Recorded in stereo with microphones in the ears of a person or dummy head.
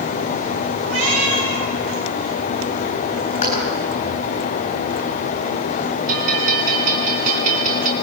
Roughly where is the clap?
Left.